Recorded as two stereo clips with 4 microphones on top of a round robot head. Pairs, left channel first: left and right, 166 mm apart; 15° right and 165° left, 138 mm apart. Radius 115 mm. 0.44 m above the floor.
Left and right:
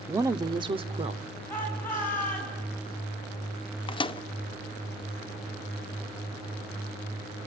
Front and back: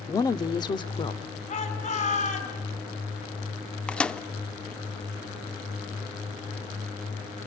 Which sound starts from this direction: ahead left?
A microwave, at 3.9 s.